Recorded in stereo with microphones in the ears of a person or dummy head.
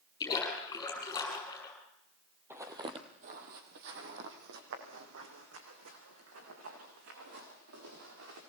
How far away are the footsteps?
About 1.9 m.